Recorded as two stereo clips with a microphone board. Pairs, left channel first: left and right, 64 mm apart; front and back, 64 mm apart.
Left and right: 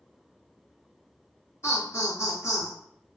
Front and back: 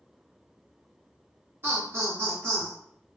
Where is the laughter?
135° left, 1.1 m.